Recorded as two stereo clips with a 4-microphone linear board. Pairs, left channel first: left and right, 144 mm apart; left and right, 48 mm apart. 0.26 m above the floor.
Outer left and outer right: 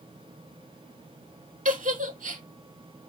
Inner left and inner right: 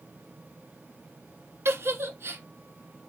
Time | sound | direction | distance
1.6 | a giggle | 65° right (ahead or behind) | 0.6 m